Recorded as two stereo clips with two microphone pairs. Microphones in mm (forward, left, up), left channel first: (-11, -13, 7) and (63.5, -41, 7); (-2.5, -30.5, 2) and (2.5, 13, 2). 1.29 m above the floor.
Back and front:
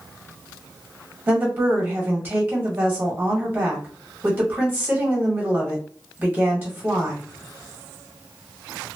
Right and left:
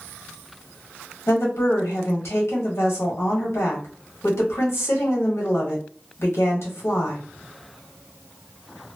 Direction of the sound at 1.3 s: 85° right.